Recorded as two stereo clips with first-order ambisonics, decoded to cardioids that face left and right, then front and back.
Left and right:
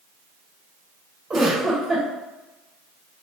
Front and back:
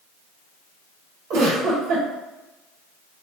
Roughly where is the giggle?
Behind right.